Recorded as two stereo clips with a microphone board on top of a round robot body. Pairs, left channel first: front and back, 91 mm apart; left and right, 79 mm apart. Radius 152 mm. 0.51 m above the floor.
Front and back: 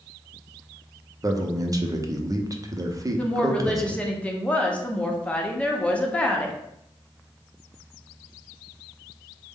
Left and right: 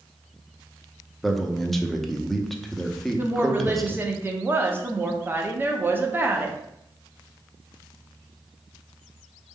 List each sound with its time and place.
1.2 s a man speaking: 175° left, 0.8 m
3.2 s a woman speaking: 65° right, 0.9 m